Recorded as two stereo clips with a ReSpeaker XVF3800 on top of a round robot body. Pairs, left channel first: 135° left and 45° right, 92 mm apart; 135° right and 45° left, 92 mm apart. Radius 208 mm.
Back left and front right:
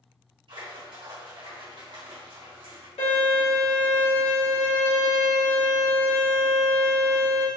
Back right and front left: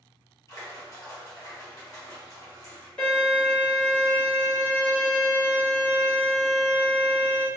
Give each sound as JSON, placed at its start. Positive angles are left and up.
{"t": 0.5, "sound": "a splash", "azimuth_deg": -80, "distance_m": 1.3}
{"t": 3.0, "sound": "a violin", "azimuth_deg": 145, "distance_m": 1.9}